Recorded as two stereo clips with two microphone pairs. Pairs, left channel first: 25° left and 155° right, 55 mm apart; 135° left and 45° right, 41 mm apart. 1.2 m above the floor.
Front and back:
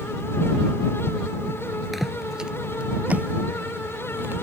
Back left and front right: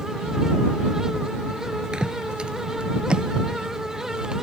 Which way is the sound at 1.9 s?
70° right.